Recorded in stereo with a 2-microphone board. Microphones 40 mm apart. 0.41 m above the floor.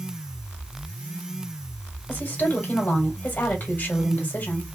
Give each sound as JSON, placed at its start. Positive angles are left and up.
{"t": 2.1, "sound": "a woman speaking", "side_deg": 45, "distance_m": 2.0}